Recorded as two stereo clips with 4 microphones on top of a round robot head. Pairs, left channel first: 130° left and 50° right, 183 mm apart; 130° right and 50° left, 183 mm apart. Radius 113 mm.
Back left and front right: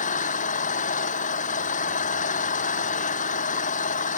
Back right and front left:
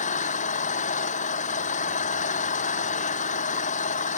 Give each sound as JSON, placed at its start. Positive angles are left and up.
{"t": 0.0, "sound": "an engine running", "azimuth_deg": 180}